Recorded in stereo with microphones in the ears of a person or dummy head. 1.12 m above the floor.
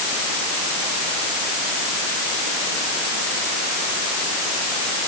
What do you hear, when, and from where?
Only background noise.